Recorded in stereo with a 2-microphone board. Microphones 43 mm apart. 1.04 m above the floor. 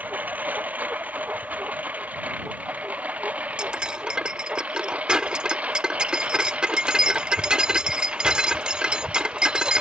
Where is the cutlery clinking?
25° right (ahead or behind).